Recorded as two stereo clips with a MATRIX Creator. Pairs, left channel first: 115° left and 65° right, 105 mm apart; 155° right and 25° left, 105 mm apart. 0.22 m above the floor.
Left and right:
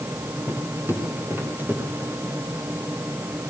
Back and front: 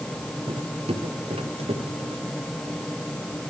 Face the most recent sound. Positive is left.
turn(degrees=5)